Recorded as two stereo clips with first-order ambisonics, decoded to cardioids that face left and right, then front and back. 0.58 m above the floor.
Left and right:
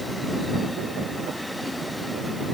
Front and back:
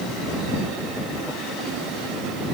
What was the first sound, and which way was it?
Only background noise.